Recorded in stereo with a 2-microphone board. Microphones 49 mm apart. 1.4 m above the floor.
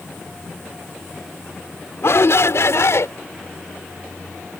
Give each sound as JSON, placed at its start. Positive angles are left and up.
{"t": 2.0, "sound": "a shout", "side_deg": 60}